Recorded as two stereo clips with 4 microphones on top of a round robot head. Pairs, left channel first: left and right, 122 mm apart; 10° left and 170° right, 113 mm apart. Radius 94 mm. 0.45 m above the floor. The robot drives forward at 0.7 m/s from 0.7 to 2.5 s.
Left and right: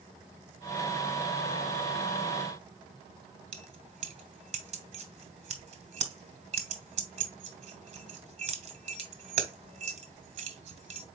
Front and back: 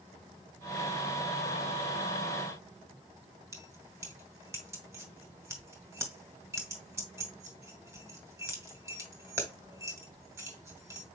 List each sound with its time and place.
3.5 s keys jangling: 105° right, 1.2 m